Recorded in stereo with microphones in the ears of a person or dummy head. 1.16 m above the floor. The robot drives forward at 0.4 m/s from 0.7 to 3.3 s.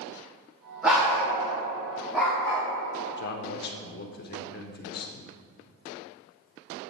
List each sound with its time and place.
0.8 s a dog barking: centre (ahead or behind), 1.3 m
3.2 s a man speaking: 50° left (ahead or behind), 0.6 m